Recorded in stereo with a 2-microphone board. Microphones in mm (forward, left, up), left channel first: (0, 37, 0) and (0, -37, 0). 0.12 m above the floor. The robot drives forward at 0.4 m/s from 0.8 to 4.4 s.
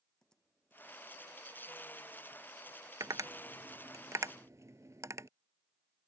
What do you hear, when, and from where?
0.2 s typing on a keyboard: 10° left (ahead or behind)
3.0 s tapping: 55° right (ahead or behind); by 5.3 s 45° right (ahead or behind)